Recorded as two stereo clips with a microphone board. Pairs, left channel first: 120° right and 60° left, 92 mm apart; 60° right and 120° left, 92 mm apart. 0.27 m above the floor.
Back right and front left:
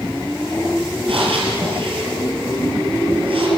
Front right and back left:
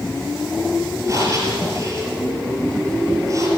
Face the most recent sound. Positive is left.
turn(degrees=65)